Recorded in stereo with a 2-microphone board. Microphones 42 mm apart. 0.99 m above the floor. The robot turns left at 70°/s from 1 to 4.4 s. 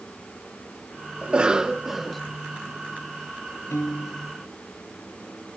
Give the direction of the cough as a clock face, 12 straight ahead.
4 o'clock.